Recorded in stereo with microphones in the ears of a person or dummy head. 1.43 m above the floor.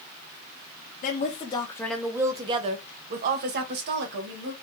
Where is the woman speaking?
45° left (ahead or behind), 0.7 m; by 4.5 s 65° right (ahead or behind), 1.4 m.